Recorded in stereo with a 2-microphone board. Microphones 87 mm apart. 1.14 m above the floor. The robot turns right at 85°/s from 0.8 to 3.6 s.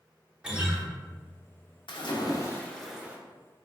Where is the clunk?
I don't hear a clunk.